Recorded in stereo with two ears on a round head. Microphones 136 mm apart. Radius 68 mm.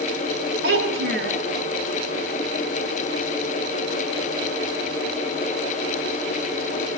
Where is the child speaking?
80° right, 5 m.